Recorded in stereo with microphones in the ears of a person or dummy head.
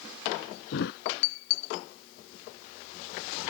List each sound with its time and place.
0.7 s a thud: 60° left (ahead or behind)